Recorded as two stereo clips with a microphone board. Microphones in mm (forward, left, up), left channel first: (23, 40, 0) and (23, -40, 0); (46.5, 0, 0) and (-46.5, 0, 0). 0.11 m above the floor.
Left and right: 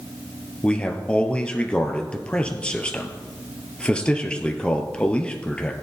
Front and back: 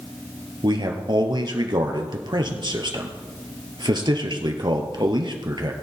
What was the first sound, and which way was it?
A man speaking, 165° left.